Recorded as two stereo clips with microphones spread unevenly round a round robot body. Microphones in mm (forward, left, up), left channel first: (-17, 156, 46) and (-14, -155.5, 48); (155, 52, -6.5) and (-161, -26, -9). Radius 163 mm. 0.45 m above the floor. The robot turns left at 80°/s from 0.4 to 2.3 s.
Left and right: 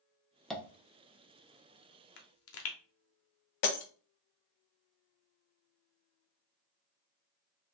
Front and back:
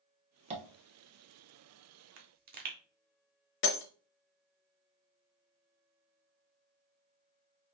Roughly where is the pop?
Behind left.